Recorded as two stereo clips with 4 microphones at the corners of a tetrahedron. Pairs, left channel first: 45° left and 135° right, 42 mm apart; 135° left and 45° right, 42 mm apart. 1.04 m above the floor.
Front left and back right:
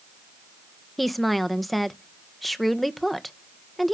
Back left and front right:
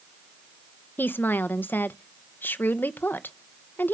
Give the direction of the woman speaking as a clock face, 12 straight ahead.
8 o'clock.